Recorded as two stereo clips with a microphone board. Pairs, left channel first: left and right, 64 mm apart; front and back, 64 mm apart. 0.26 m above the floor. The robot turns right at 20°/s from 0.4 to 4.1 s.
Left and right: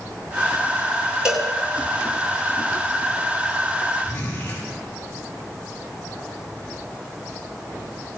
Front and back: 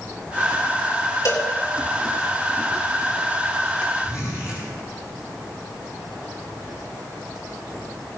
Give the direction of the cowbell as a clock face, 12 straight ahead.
12 o'clock.